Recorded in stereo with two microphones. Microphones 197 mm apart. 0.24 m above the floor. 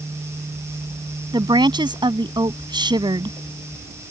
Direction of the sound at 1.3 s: 20° right (ahead or behind).